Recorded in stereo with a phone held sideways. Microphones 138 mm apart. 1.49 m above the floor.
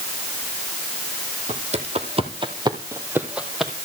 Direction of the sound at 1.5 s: 50° right (ahead or behind).